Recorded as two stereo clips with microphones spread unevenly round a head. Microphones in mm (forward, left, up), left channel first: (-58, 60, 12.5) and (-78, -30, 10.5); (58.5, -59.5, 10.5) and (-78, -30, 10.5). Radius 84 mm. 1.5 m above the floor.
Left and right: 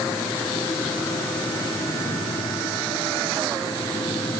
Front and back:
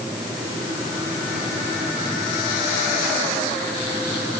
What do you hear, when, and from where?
Only background noise.